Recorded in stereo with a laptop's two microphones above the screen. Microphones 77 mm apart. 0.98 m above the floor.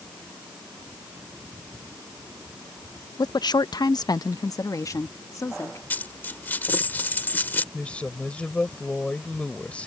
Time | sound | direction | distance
3.2 | a woman speaking | 50° left (ahead or behind) | ?
5.9 | a dropped coin | 25° left (ahead or behind) | ?
7.7 | a woman speaking | 15° left (ahead or behind) | ?